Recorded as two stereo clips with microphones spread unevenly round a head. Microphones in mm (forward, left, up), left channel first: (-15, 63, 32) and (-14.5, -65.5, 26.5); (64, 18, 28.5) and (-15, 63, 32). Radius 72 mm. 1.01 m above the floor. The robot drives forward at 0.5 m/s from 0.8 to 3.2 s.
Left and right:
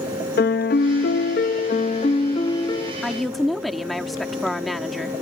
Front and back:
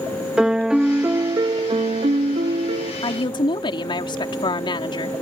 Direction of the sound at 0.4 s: 70° left.